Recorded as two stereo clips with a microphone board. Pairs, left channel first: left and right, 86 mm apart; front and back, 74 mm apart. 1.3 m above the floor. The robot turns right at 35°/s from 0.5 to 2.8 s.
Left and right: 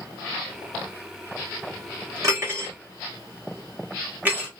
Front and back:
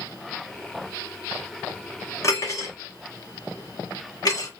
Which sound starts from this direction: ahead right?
Cutlery clinking, at 2.2 s.